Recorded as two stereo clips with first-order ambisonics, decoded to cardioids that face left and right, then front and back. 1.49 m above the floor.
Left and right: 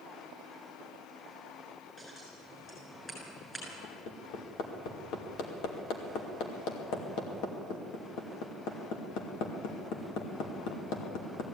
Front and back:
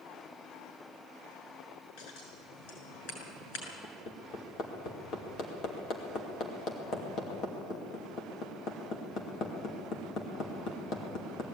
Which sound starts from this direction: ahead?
Scissors, at 2.0 s.